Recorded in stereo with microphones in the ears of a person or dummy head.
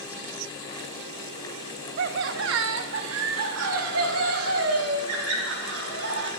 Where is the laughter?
50° right (ahead or behind), 0.5 m; by 6.3 s 85° right, 3 m.